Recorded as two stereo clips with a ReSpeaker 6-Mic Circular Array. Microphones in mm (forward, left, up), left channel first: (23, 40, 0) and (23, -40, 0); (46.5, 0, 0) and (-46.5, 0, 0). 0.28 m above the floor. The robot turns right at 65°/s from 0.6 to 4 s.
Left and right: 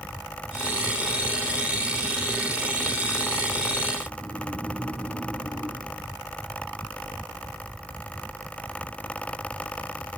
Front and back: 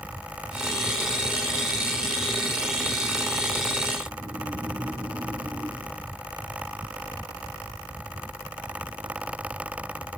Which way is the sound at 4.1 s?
120° left.